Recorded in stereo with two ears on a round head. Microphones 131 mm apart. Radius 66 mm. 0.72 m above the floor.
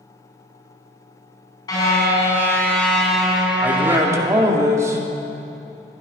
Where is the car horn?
25° left (ahead or behind), 3.5 m; by 4.5 s 25° right (ahead or behind), 3 m.